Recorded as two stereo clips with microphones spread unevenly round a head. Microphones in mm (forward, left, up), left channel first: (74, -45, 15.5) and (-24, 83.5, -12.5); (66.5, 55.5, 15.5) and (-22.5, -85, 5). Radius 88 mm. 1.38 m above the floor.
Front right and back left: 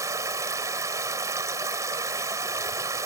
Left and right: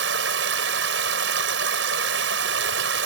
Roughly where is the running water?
Behind right.